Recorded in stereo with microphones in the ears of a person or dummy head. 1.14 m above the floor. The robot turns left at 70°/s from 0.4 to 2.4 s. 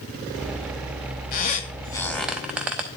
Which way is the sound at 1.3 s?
45° left (ahead or behind).